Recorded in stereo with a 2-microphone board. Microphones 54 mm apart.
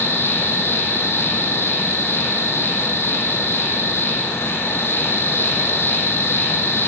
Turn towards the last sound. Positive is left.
turn(degrees=50)  # may be behind; listen again after turning